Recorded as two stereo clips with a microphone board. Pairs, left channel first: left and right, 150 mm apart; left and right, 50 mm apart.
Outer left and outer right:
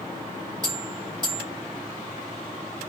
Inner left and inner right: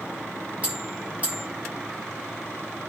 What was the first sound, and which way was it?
A bell, 25° right (ahead or behind).